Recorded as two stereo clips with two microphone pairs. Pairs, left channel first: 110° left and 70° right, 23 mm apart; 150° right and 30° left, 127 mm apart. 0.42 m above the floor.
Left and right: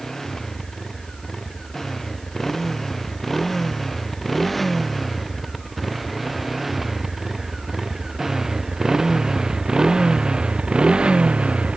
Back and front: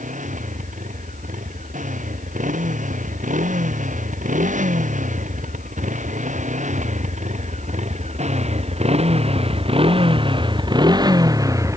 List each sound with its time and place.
0.0 s a motorcycle: 40° left; by 11.8 s 35° right